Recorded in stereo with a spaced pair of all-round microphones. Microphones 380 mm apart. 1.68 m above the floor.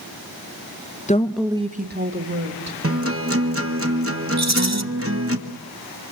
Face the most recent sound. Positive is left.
turn(degrees=-45)  # may be behind; listen again after turning